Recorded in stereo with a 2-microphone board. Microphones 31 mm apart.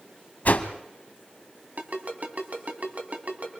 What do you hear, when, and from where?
0.5 s a whoosh: 60° left (ahead or behind), 1.3 m
1.8 s a ringtone: 55° right (ahead or behind), 2.5 m